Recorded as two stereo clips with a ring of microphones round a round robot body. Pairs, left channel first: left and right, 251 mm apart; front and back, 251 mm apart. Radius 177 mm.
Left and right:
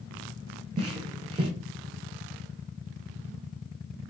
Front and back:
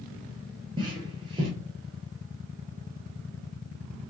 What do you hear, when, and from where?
0.8 s footsteps: 130° right, 0.7 m